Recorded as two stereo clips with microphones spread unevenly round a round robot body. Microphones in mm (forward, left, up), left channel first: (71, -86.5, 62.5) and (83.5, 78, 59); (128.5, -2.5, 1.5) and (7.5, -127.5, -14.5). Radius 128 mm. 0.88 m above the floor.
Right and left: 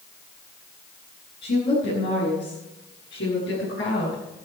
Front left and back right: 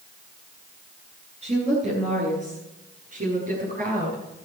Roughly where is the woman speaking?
Right.